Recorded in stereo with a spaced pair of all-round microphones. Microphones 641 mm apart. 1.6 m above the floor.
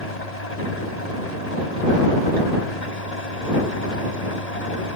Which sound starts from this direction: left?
An engine running, at 0.0 s.